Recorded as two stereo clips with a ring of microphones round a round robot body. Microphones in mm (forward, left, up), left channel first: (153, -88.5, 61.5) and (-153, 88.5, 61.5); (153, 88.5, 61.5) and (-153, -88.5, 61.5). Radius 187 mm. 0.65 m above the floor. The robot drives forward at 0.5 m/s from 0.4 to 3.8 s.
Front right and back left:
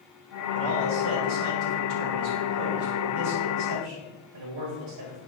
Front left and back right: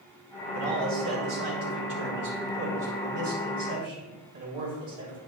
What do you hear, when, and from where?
0.5 s a man speaking: 165° left, 1.9 m; by 5.2 s 170° left, 3.5 m